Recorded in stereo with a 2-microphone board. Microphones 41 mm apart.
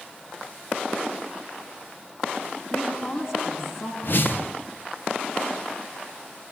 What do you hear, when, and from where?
2.7 s a woman speaking: 65° left (ahead or behind), 10 m
4.0 s a whoosh: 55° left (ahead or behind), 0.8 m